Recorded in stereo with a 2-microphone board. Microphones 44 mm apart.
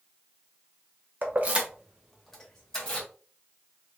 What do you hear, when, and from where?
1.2 s keys jangling: 50° right (ahead or behind), 0.8 m; by 3.1 s 20° left (ahead or behind), 1.7 m